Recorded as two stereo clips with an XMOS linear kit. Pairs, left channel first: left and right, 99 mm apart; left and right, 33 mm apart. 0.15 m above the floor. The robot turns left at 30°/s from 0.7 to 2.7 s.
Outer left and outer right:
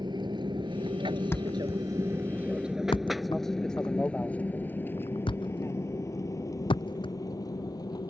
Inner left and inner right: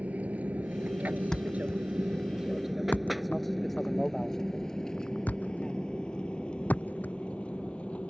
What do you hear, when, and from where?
0.0 s an aircraft: 50° right (ahead or behind); by 8.1 s 45° left (ahead or behind)
1.3 s a thud: 25° left (ahead or behind); by 8.1 s 65° left (ahead or behind)